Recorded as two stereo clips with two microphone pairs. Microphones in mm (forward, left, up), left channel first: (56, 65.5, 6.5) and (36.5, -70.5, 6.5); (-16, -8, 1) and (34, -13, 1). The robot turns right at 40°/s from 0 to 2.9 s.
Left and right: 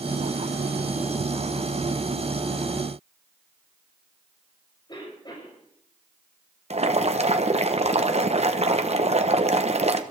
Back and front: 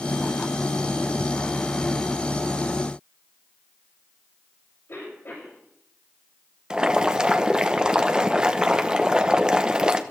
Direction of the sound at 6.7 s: 75° right.